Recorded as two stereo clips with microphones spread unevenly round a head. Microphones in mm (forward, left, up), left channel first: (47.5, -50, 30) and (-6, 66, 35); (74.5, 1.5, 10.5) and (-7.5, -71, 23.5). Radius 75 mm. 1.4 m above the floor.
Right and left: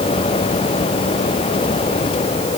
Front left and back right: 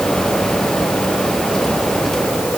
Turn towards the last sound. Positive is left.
No sound to turn to.